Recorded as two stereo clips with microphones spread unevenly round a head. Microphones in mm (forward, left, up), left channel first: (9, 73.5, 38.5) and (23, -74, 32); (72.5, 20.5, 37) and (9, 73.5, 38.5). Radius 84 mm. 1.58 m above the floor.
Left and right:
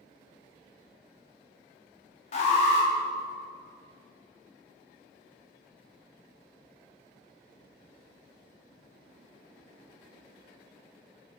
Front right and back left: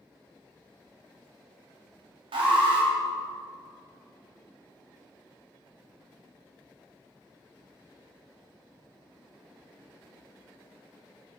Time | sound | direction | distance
2.3 | an alarm | 140° left | 3.5 m